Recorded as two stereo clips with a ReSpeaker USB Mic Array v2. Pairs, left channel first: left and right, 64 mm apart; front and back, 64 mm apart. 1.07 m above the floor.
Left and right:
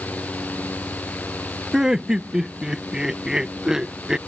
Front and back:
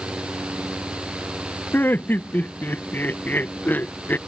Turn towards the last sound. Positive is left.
turn(degrees=-20)